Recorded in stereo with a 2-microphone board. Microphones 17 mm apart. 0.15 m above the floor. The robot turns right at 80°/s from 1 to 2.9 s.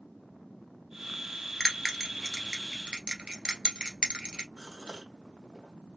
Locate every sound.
1.6 s a bell: 25° left (ahead or behind), 1.6 m; by 4.5 s 60° right (ahead or behind), 1.6 m
4.6 s a gasp: 50° right (ahead or behind), 2.5 m